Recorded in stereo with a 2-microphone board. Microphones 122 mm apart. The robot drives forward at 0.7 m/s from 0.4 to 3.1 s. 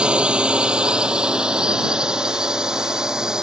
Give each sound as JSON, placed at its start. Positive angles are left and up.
{"t": 0.0, "sound": "a drone", "side_deg": -10}